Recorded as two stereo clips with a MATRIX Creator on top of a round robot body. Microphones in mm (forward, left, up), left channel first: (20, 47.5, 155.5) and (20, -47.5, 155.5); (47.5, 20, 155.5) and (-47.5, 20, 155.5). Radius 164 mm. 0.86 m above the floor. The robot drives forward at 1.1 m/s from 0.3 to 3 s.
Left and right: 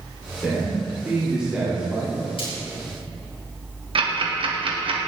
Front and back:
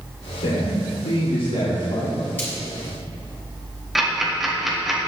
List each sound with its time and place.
0.4 s a man speaking: 5° right, 3.5 m; by 2.2 s 15° right, 1.8 m
2.4 s frying: 70° left, 4.5 m
4.0 s ticking: 95° right, 2.5 m